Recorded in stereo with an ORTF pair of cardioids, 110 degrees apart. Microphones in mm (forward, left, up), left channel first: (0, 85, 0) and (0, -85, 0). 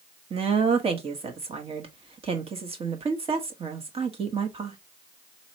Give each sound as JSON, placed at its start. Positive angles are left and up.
{"t": 0.3, "sound": "a woman speaking", "azimuth_deg": -35, "distance_m": 1.2}